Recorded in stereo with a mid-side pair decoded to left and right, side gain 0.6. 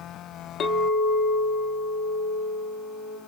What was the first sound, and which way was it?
A clink, 55° left.